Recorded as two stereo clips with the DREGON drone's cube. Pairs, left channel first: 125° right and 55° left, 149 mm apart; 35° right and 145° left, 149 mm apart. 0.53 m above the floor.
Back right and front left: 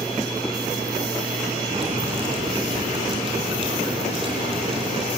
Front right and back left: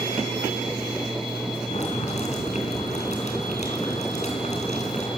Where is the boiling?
5° left, 4 m.